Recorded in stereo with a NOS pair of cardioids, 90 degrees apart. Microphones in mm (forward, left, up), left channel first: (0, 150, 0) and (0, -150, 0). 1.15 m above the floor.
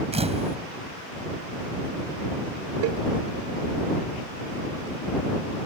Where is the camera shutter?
20° right.